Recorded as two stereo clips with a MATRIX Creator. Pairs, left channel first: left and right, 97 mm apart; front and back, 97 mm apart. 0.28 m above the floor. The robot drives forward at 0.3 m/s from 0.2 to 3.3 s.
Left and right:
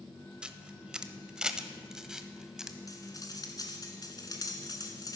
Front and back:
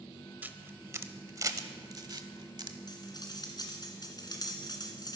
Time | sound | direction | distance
0.4 | a camera shutter | 150° right | 0.8 m
2.9 | cutlery clinking | 40° left | 2 m